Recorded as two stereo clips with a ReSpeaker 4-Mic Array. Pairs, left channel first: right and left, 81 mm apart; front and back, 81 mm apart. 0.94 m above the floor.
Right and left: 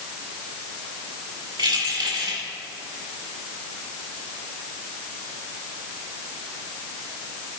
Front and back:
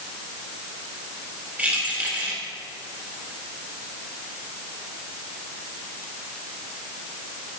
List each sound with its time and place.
1.6 s keys jangling: 110° left, 3 m